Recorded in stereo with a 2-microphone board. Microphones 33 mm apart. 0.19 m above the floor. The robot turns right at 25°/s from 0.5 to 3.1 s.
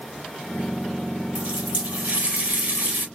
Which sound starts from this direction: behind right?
A running tap, at 1.4 s.